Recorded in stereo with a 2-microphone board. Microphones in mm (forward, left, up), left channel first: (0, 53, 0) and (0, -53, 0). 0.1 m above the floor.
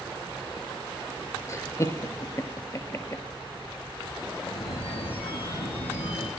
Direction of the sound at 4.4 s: 75° left (ahead or behind).